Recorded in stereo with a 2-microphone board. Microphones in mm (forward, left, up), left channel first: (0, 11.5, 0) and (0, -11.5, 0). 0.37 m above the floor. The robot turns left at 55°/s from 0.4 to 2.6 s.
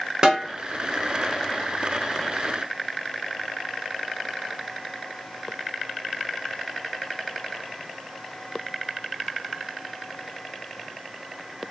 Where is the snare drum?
30° right (ahead or behind), 1.0 m.